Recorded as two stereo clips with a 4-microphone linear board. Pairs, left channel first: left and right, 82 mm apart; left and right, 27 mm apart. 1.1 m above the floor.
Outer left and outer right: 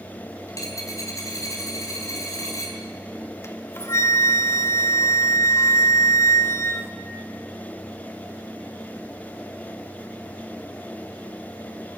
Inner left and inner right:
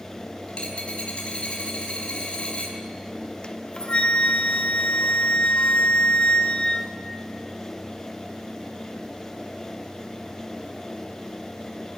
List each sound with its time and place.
0.5 s a dropped coin: 40° left (ahead or behind), 4 m
3.4 s a flute: 35° left (ahead or behind), 1.2 m